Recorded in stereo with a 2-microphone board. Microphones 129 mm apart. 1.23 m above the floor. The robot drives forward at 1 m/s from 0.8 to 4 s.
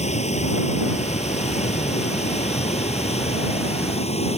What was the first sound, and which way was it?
Running water, 60° left (ahead or behind).